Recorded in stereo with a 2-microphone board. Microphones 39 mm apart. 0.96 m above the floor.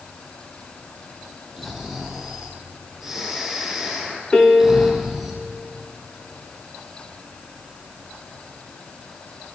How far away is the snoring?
About 7 m.